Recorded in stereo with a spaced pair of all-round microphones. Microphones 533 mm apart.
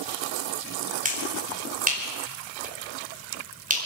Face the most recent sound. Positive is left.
turn(degrees=-15)  # may be behind; listen again after turning